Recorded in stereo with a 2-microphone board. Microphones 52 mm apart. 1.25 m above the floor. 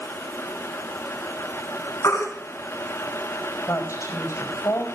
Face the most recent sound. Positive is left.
turn(degrees=75)  # may be behind; listen again after turning